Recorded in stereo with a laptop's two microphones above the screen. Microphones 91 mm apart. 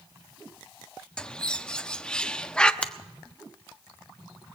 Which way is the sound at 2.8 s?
10° left (ahead or behind).